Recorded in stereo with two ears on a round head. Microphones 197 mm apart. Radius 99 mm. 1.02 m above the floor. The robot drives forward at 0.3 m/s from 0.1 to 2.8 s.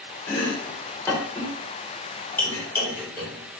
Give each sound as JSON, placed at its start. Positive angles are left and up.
{"t": 0.3, "sound": "chopping", "side_deg": 15, "distance_m": 0.7}